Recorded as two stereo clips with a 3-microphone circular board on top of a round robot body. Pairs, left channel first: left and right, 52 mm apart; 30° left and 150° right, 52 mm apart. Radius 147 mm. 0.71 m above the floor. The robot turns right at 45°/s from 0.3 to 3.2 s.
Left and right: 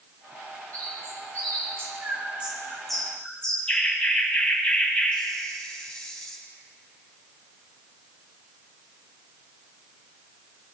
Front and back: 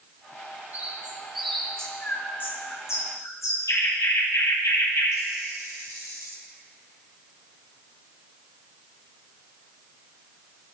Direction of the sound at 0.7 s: 95° right.